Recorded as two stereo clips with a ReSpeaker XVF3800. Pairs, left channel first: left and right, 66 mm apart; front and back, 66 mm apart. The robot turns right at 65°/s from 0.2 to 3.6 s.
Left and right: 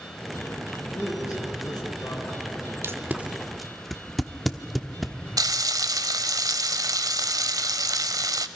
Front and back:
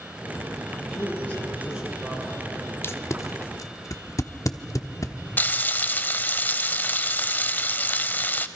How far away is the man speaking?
About 6 m.